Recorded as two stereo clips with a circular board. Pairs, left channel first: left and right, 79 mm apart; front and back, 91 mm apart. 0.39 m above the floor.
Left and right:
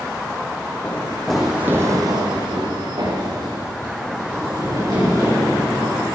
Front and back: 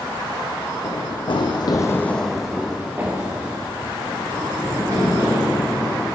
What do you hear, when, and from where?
0.8 s running footsteps: 20° left, 1.3 m; by 6.0 s 125° right, 5 m